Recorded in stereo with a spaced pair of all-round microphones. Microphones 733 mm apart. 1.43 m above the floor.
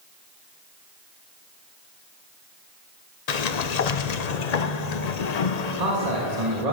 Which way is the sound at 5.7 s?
60° right (ahead or behind).